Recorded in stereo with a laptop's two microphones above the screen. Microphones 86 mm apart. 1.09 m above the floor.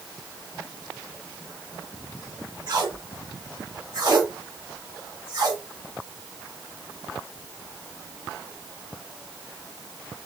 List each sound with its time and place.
2.7 s tape being pulled: 50° right (ahead or behind), 2.5 m